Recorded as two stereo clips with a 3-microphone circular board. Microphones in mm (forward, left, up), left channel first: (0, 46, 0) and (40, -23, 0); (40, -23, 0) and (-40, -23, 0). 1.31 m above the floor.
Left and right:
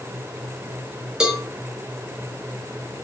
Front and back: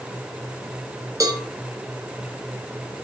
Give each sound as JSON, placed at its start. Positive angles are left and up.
{"t": 1.2, "sound": "a cowbell", "azimuth_deg": -140, "distance_m": 2.5}